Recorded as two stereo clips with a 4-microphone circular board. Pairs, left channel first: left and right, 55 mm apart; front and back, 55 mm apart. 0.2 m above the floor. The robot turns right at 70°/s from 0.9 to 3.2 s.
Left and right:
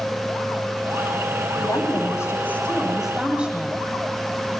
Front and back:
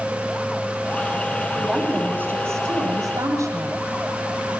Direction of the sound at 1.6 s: 85° left.